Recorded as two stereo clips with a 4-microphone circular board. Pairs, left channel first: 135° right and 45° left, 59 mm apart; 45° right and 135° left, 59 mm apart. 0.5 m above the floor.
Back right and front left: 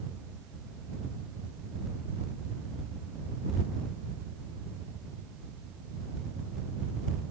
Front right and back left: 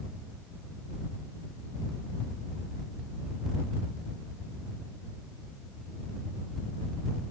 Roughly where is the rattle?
No rattle in this recording.